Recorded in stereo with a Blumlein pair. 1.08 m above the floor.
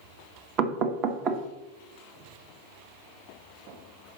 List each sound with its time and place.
0.6 s knocking: 35° right, 0.8 m